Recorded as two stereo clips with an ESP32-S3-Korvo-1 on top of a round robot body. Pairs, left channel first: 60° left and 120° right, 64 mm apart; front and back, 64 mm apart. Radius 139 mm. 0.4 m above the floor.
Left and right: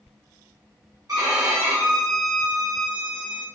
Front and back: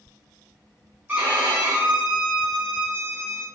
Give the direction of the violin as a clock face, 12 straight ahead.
4 o'clock.